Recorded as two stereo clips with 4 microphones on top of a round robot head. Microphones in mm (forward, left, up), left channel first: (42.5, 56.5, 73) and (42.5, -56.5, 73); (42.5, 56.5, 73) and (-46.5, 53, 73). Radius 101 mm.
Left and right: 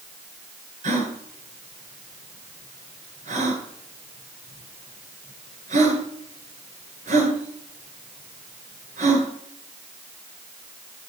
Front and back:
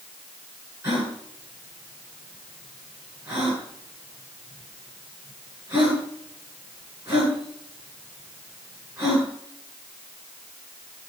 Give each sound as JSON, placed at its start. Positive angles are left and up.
{"t": 0.8, "sound": "a gasp", "azimuth_deg": -110, "distance_m": 10.0}